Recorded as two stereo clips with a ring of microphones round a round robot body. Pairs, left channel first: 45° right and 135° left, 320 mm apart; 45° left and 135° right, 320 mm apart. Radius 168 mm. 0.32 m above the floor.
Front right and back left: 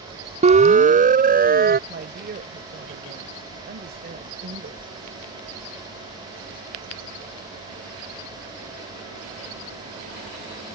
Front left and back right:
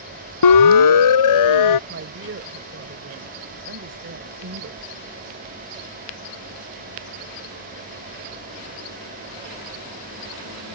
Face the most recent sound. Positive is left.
turn(degrees=-175)